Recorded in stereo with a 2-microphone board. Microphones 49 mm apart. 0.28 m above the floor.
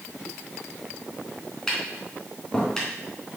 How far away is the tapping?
About 3 m.